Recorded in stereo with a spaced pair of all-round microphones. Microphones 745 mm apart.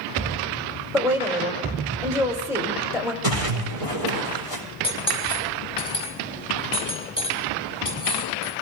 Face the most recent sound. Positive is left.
turn(degrees=10)  # may be behind; listen again after turning